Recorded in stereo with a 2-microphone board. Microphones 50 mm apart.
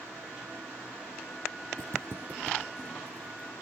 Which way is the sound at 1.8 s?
75° right (ahead or behind).